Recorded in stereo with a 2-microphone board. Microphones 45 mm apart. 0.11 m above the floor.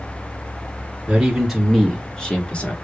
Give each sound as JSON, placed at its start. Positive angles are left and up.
{"t": 1.1, "sound": "a man speaking", "side_deg": -10, "distance_m": 1.9}